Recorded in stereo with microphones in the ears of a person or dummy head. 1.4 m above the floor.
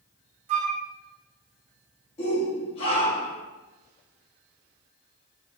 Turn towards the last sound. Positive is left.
turn(degrees=35)  # may be behind; listen again after turning